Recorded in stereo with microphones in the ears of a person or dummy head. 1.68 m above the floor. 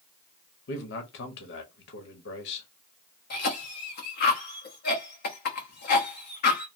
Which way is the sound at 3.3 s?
55° left (ahead or behind).